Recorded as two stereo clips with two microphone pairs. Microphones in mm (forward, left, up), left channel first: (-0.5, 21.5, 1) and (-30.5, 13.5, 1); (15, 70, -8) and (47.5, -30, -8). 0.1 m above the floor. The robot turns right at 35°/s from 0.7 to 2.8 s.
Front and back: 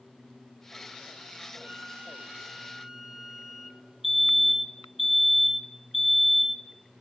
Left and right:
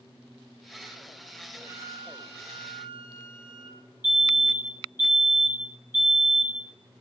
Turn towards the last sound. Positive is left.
turn(degrees=135)